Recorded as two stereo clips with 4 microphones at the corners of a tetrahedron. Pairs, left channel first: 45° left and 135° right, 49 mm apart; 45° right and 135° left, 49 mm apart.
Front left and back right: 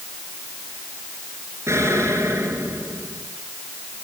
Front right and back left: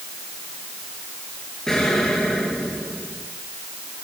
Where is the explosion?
125° right, 5.5 m.